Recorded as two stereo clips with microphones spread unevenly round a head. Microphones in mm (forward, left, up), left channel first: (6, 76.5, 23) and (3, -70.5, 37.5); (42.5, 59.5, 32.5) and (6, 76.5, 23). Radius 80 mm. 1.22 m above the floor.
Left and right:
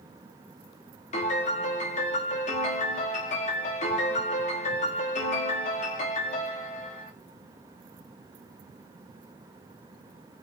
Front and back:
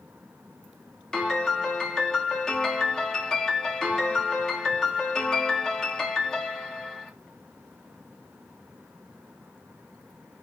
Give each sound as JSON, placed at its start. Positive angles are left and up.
{"t": 1.1, "sound": "a piano", "azimuth_deg": 45, "distance_m": 1.1}